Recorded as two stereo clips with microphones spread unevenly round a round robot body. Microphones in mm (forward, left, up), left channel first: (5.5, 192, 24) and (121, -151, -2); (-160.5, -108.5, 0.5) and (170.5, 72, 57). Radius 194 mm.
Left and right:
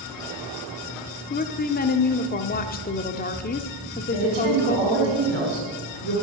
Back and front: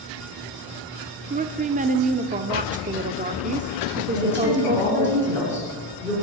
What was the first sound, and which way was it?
A woman speaking, 85° left.